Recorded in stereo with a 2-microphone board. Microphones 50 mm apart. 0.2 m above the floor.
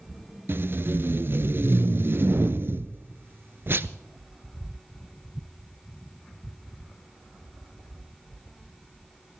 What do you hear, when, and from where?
0.5 s tape being pulled: 50° right (ahead or behind), 0.6 m